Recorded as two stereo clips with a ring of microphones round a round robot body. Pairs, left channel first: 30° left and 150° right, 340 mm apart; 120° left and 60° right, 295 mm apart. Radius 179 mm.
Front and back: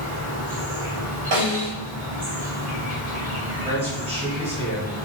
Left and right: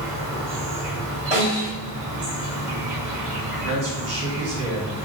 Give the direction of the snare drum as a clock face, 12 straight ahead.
4 o'clock.